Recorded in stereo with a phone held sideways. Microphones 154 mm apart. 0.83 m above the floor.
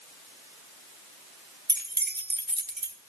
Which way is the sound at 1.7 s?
75° right (ahead or behind).